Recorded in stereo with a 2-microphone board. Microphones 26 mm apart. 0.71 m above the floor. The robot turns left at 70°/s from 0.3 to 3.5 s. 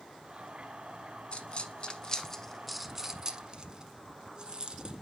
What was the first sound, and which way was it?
A dropped coin, 40° left (ahead or behind).